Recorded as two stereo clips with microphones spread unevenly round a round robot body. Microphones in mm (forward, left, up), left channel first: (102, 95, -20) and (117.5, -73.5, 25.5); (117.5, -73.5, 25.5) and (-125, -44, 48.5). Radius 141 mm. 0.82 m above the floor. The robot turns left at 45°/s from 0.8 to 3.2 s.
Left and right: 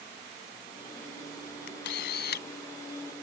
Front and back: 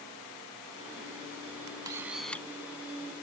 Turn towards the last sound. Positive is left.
turn(degrees=45)